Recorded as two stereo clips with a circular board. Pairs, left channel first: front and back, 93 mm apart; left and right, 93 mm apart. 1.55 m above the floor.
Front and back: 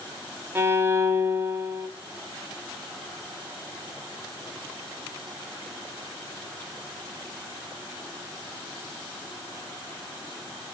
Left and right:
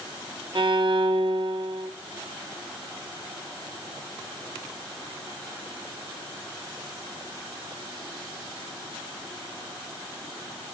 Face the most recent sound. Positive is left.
turn(degrees=-120)